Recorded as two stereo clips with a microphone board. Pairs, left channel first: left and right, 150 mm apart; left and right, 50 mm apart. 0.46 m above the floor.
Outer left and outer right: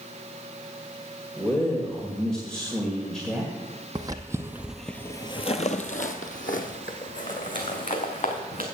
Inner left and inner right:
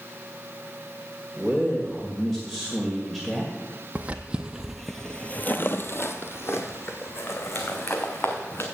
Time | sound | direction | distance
1.4 | a man speaking | 5° left (ahead or behind) | 1.8 m
4.0 | footsteps | 25° right (ahead or behind) | 1.0 m